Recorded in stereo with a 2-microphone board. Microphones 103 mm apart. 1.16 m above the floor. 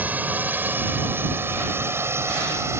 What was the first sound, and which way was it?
A drone, 15° right (ahead or behind).